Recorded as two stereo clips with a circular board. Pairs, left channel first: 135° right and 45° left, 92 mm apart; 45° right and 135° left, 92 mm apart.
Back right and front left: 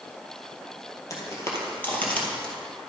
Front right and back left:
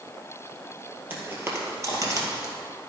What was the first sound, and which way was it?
Footsteps, 165° right.